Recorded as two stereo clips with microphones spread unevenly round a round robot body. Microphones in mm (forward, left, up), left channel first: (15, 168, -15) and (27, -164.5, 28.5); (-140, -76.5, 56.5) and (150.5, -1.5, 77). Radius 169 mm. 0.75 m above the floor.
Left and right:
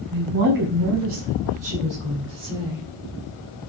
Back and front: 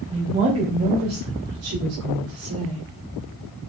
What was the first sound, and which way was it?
A woman speaking, 55° right.